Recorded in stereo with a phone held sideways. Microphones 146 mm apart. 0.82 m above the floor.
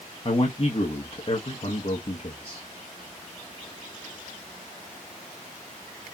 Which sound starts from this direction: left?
A man speaking, at 0.2 s.